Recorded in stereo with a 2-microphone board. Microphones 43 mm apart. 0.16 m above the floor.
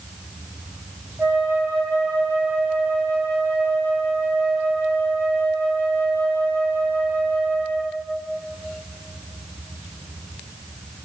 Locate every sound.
1.2 s a flute: 55° right (ahead or behind), 1.8 m